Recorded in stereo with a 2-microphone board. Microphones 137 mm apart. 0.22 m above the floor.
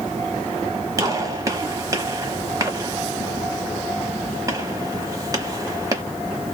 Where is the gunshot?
25° right (ahead or behind), 0.9 m.